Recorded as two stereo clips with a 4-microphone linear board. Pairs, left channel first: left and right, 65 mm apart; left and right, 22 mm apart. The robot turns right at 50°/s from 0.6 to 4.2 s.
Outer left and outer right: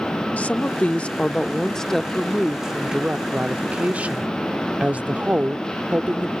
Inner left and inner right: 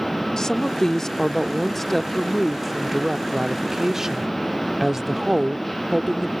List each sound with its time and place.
0.4 s a woman speaking: 20° left (ahead or behind); by 6.3 s 20° right (ahead or behind)